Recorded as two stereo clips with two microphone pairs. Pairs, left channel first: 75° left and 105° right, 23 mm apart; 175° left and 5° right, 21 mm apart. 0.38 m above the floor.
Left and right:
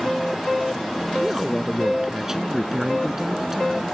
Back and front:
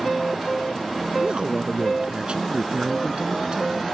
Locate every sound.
1.2 s a man speaking: 30° right